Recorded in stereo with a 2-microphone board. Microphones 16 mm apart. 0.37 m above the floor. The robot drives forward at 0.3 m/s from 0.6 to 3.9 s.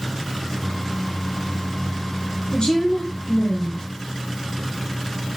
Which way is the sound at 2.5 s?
45° left (ahead or behind).